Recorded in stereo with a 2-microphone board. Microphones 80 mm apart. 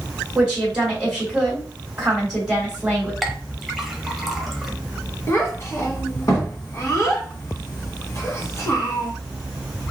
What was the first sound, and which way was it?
A woman speaking, 10° right (ahead or behind).